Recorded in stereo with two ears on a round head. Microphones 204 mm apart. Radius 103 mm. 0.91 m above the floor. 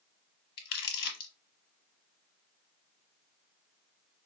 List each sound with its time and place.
0.6 s crumpling: 50° left (ahead or behind), 1.4 m